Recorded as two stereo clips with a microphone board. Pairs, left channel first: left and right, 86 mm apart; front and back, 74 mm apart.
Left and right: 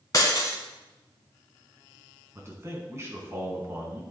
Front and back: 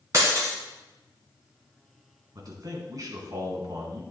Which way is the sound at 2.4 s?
150° right.